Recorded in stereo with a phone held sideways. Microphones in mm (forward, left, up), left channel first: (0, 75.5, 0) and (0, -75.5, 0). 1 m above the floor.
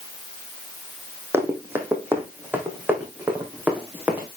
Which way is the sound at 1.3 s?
15° right (ahead or behind).